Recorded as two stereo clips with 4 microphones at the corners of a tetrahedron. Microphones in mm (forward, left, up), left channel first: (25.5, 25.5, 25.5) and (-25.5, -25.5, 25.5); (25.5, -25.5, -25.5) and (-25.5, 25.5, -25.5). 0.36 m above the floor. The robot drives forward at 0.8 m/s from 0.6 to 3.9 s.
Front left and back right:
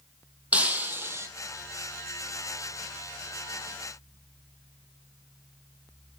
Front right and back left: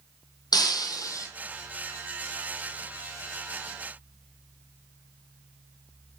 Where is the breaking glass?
65° right, 1.5 m; by 1.3 s 85° right, 1.3 m.